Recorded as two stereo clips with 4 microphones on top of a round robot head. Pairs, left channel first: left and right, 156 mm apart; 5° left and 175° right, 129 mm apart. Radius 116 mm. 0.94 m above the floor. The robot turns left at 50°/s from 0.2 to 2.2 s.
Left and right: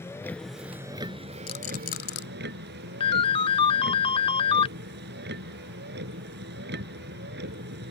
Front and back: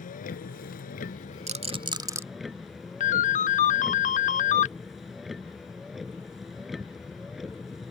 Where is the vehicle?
15° left; by 7.9 s 85° right.